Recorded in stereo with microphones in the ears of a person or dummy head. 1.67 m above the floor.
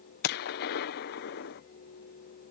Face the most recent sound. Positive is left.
turn(degrees=60)  # may be behind; listen again after turning